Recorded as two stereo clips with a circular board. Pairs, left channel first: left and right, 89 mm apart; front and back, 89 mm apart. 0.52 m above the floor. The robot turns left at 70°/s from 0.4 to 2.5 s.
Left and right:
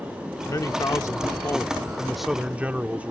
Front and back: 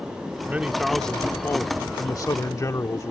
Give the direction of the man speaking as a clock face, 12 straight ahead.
8 o'clock.